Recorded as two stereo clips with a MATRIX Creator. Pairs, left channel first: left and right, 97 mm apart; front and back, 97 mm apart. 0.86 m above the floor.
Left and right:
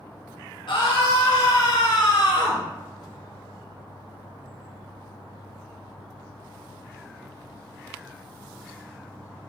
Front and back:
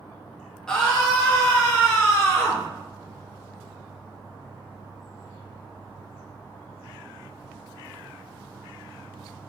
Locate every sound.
0.7 s a scream: 80° left, 0.8 m; by 2.6 s 75° left, 2.5 m